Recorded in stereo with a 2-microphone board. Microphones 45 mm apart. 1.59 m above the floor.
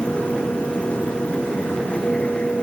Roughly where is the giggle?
I don't hear a giggle.